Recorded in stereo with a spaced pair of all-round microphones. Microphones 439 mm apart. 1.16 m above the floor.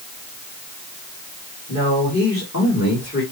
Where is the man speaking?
35° left (ahead or behind), 4 m.